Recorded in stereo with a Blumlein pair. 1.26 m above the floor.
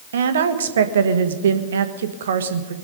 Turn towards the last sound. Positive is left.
turn(degrees=-65)